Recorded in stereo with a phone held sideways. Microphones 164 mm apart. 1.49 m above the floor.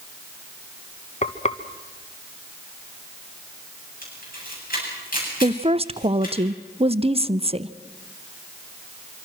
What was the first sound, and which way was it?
Frying, 45° left (ahead or behind).